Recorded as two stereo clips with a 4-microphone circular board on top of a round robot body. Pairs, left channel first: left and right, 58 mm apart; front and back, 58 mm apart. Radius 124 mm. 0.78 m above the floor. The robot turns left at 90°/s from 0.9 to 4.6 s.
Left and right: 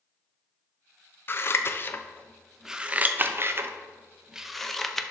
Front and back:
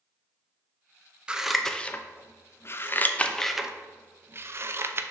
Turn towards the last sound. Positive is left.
turn(degrees=175)